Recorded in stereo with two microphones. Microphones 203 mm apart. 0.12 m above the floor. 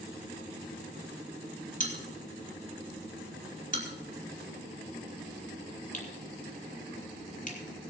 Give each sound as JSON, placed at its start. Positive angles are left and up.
{"t": 1.8, "sound": "a bell", "side_deg": 45, "distance_m": 3.5}